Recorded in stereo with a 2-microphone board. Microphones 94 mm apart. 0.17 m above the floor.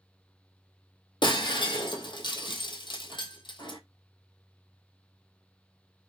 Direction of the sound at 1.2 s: 55° left (ahead or behind).